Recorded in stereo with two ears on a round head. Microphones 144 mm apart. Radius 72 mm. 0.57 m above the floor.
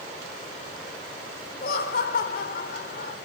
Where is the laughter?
60° left (ahead or behind), 1.8 m.